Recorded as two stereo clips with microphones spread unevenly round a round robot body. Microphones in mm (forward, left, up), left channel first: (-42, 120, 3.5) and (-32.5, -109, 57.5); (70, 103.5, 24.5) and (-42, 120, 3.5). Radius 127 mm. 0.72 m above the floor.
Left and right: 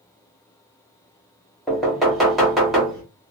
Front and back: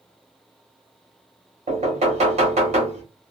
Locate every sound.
1.7 s knocking: straight behind, 1.3 m